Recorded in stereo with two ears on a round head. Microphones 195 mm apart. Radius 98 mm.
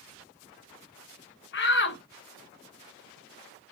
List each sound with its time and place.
1.5 s a shout: 55° left (ahead or behind), 0.9 m